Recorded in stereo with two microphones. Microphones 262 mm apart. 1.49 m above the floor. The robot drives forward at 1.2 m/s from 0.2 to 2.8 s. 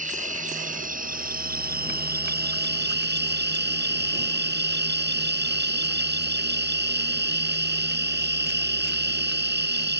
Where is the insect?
30° right (ahead or behind); by 10.0 s 40° right (ahead or behind).